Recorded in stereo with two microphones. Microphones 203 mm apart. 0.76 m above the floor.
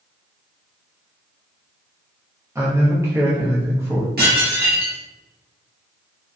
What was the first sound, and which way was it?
A man speaking, 15° right (ahead or behind).